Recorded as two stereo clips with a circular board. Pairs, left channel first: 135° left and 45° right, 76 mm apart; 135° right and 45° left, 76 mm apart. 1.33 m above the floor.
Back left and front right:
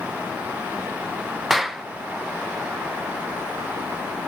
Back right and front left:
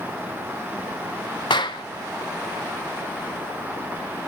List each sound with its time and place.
1.5 s a clap: 135° right, 0.8 m